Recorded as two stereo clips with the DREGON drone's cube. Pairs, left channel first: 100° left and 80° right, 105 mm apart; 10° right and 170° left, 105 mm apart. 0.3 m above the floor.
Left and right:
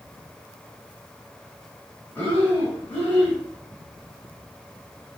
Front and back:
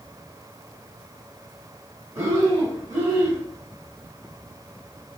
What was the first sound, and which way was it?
Breathing, 150° left.